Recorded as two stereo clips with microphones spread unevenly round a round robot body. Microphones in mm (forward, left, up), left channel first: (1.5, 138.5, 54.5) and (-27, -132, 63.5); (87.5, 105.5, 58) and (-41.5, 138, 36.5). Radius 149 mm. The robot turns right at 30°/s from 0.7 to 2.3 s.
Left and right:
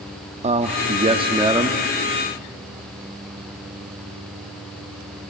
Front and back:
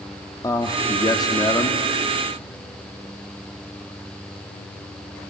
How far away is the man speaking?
About 0.9 m.